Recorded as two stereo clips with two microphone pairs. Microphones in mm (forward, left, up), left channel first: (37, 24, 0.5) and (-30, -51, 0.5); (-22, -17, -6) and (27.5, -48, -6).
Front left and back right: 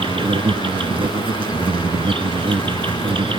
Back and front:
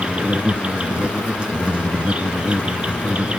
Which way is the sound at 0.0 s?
100° right.